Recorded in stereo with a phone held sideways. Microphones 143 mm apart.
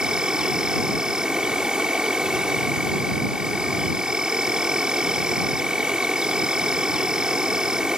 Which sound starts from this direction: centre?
An insect, at 0.0 s.